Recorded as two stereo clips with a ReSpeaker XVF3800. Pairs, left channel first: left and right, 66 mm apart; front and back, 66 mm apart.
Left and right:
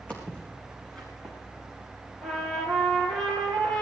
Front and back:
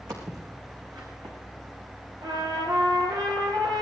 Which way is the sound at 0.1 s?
160° left.